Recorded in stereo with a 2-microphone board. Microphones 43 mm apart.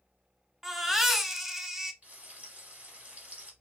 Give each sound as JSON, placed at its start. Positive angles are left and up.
{"t": 0.6, "sound": "a baby crying", "side_deg": -10, "distance_m": 0.6}
{"t": 2.0, "sound": "frying", "side_deg": -35, "distance_m": 1.7}